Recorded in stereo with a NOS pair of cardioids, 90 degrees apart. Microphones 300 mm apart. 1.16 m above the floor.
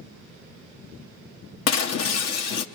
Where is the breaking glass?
60° left, 0.9 m.